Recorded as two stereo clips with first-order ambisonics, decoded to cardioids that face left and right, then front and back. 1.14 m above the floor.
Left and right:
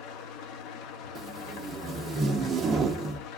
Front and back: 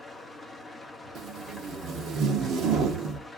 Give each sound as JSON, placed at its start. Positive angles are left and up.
{"t": 0.0, "sound": "an engine running", "azimuth_deg": 85, "distance_m": 0.7}
{"t": 1.1, "sound": "tape being pulled", "azimuth_deg": -150, "distance_m": 0.8}